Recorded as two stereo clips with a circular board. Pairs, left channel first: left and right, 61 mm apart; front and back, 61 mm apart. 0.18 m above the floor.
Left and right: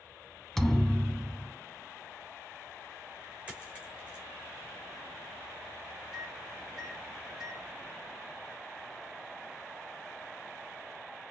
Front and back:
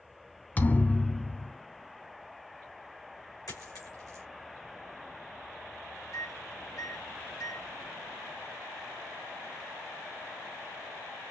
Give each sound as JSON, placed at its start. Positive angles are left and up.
{"t": 0.6, "sound": "a thud", "azimuth_deg": 15, "distance_m": 0.6}
{"t": 3.5, "sound": "a dropped coin", "azimuth_deg": -20, "distance_m": 2.5}
{"t": 6.1, "sound": "a microwave", "azimuth_deg": -10, "distance_m": 4.0}